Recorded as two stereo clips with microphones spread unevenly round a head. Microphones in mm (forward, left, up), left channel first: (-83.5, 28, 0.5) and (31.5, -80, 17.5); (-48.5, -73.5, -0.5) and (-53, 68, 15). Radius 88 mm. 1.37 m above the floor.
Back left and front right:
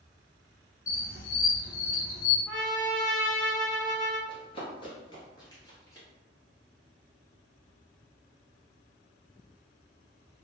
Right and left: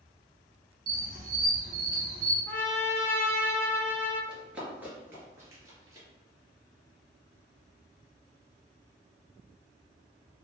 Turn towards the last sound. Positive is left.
turn(degrees=65)